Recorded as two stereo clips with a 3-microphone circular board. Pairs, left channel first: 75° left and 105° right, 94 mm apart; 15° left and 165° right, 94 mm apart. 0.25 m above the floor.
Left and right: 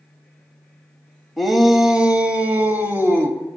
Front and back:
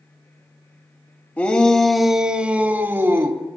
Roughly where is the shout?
Ahead.